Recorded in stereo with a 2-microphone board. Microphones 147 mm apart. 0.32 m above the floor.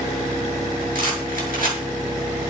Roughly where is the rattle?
Right.